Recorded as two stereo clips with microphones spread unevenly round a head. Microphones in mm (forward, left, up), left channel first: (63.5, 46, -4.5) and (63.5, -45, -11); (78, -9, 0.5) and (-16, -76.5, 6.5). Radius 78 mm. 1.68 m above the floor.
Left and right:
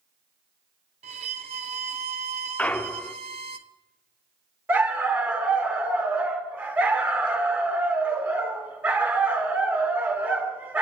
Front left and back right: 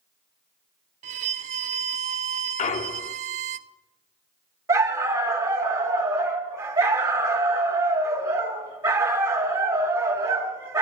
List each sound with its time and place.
1.0 s a violin: 120° right, 0.6 m
2.6 s a clunk: 20° left, 0.7 m
4.7 s a dog barking: 145° right, 1.4 m